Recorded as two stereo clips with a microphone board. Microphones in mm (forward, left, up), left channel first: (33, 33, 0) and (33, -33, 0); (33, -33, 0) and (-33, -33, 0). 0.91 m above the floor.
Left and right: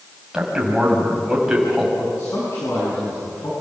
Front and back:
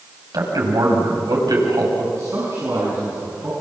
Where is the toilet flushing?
I don't hear a toilet flushing.